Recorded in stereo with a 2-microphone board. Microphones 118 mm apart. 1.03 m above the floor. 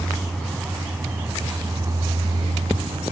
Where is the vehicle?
5° left (ahead or behind); by 3.1 s 55° right (ahead or behind).